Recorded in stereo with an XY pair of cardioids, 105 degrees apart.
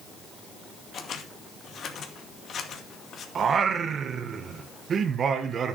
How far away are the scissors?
About 2 m.